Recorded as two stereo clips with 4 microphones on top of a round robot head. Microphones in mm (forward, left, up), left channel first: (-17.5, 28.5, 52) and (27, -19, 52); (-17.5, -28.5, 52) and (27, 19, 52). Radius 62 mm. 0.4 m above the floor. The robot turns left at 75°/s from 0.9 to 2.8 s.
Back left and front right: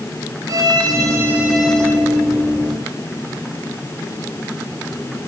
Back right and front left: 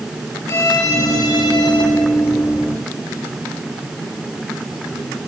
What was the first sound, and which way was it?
A violin, 85° right.